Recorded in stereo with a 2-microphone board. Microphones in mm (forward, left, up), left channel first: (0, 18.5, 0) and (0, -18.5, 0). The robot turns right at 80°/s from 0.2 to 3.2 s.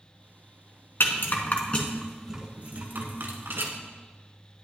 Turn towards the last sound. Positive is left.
turn(degrees=-80)